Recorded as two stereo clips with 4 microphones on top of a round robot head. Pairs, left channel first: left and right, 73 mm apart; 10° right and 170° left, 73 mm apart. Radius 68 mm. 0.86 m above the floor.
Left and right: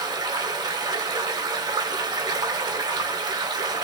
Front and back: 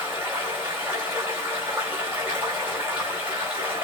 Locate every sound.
0.0 s running water: 115° right, 1.8 m